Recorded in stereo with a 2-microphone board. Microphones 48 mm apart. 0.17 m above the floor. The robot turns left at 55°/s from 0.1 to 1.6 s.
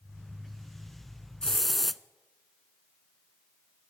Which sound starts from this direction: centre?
A hiss, at 1.4 s.